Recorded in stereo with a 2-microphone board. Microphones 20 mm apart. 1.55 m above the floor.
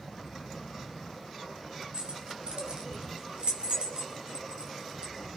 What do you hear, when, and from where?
1.9 s keys jangling: 60° right (ahead or behind), 2.5 m